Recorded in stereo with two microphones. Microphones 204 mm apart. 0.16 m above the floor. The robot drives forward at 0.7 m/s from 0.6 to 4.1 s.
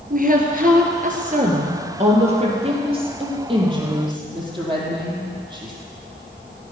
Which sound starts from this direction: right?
A woman speaking, at 0.1 s.